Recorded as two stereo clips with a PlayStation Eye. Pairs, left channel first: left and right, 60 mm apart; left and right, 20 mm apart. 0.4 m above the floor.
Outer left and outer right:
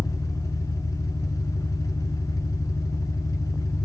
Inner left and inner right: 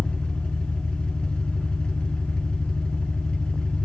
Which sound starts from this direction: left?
An engine running, at 0.0 s.